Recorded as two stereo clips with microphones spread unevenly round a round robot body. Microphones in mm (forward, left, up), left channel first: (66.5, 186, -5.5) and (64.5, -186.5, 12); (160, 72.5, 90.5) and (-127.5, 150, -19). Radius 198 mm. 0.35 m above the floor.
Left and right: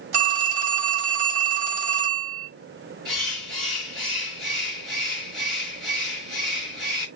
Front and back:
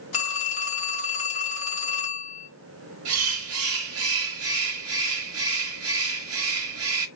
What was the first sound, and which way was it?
A phone ringing, 70° right.